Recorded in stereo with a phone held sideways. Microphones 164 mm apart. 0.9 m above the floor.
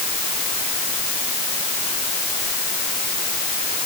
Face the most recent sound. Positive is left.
No sound to turn to.